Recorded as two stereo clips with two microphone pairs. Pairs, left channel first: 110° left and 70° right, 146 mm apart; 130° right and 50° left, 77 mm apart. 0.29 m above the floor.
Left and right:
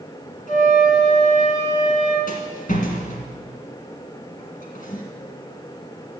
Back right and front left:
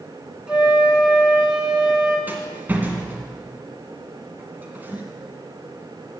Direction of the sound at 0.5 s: 130° left.